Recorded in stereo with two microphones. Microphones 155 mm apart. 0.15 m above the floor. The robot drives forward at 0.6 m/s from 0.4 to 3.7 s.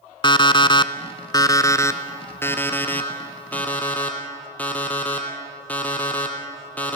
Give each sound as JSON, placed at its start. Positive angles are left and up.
{"t": 0.2, "sound": "an alarm clock", "side_deg": 35, "distance_m": 0.6}